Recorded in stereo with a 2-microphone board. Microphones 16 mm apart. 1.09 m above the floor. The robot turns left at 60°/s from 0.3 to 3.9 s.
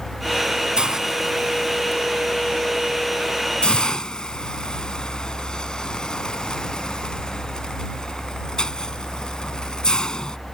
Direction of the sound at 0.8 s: 55° right (ahead or behind).